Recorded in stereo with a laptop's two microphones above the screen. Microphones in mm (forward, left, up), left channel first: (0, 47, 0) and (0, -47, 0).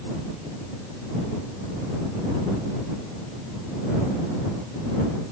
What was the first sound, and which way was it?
Only background noise.